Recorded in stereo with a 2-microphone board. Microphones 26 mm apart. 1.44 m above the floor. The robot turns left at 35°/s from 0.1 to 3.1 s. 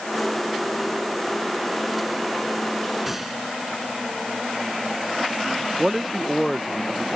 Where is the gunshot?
5° right (ahead or behind); by 3.4 s 10° right (ahead or behind).